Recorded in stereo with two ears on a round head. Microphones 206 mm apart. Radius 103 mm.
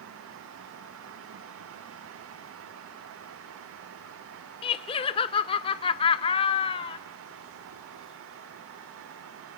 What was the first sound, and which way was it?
Laughter, 20° left (ahead or behind).